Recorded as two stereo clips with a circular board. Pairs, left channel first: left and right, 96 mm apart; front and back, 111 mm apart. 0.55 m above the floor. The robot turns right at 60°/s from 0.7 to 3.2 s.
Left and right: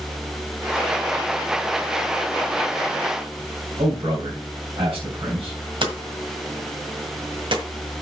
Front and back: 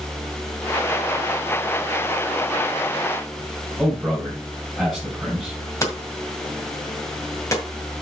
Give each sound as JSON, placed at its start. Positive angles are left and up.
{"t": 3.8, "sound": "a man speaking", "azimuth_deg": -85, "distance_m": 3.0}
{"t": 5.8, "sound": "hammering", "azimuth_deg": -60, "distance_m": 1.8}